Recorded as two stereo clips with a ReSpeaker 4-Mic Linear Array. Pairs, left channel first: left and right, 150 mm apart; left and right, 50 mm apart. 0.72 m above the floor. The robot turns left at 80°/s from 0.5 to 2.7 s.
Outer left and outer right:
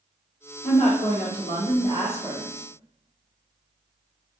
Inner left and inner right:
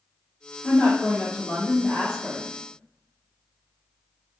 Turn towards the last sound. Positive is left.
turn(degrees=-25)